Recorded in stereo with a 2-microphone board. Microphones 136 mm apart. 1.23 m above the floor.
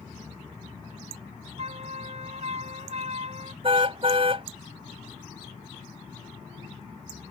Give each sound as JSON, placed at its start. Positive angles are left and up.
{"t": 1.6, "sound": "a flute", "side_deg": -55}
{"t": 3.6, "sound": "a car horn", "side_deg": -45}